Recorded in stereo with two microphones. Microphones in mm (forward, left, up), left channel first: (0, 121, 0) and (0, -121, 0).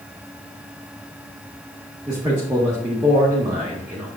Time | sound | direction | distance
2.1 | a man speaking | 10° right (ahead or behind) | 1.5 m